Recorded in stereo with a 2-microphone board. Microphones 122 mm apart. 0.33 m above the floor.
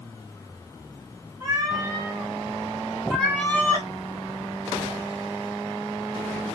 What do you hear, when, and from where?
1.4 s a cat meowing: 30° right (ahead or behind), 2 m; by 3.9 s 25° left (ahead or behind), 1.1 m